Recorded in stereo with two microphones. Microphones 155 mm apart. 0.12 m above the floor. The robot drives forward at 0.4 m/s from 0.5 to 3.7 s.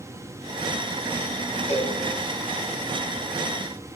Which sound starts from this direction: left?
A cowbell, at 1.7 s.